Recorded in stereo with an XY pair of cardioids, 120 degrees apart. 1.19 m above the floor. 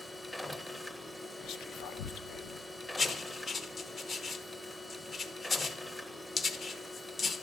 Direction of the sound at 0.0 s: 15° left.